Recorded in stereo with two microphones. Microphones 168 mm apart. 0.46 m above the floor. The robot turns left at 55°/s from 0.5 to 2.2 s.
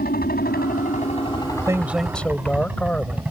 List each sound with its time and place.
0.0 s a helicopter: 65° left (ahead or behind); by 3.3 s 5° right (ahead or behind)
1.7 s a man speaking: 20° right (ahead or behind); by 3.2 s 5° left (ahead or behind)